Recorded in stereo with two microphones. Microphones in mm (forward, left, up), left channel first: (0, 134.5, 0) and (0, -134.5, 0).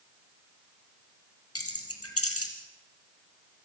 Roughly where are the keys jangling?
Left.